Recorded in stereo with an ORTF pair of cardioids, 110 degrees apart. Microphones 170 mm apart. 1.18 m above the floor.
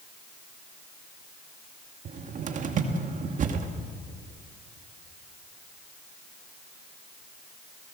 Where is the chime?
No chime in this recording.